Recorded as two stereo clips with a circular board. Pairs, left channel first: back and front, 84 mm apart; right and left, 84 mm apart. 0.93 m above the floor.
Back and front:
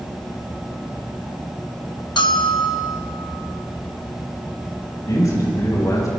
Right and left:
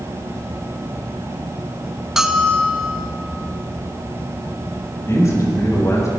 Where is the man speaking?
140° right, 5 m.